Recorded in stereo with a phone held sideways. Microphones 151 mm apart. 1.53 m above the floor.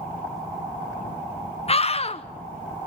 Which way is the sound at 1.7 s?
40° left (ahead or behind).